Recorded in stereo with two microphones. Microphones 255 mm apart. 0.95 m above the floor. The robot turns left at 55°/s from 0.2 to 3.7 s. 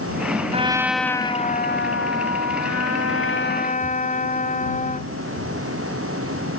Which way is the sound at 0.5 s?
155° right.